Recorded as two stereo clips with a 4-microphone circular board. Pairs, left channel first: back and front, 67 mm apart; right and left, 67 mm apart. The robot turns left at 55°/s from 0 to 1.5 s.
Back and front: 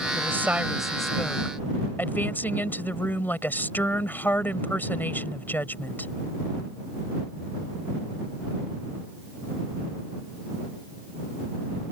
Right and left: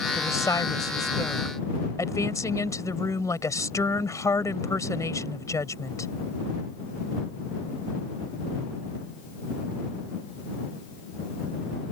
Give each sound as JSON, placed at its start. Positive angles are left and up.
{"t": 0.1, "sound": "a woman speaking", "azimuth_deg": -45}